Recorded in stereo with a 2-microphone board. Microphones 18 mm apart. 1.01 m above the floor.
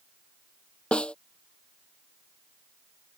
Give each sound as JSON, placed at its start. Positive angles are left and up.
{"t": 0.9, "sound": "a snare drum", "side_deg": 75}